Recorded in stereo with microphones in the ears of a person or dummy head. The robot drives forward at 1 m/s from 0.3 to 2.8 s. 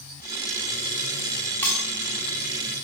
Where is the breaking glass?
20° left (ahead or behind), 4.5 m.